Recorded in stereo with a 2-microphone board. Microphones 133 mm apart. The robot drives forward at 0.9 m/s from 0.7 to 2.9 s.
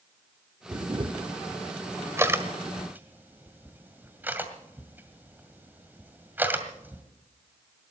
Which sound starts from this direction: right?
A camera shutter, at 0.7 s.